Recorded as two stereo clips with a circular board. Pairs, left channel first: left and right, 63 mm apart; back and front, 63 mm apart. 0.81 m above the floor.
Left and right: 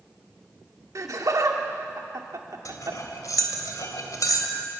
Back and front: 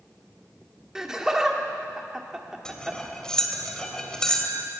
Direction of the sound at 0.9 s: 80° right.